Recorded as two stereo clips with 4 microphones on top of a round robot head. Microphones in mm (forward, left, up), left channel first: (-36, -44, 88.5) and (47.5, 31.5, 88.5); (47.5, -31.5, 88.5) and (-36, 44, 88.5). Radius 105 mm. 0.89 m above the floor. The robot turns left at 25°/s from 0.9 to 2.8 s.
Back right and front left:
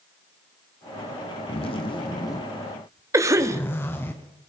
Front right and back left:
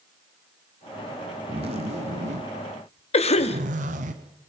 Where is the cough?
20° right, 2 m.